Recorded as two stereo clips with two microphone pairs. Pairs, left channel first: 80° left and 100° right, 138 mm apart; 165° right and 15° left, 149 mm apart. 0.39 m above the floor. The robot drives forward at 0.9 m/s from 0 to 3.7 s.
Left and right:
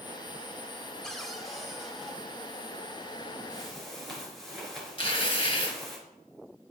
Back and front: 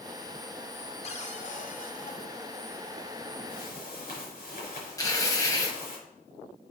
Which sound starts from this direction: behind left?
Tearing paper, at 5.0 s.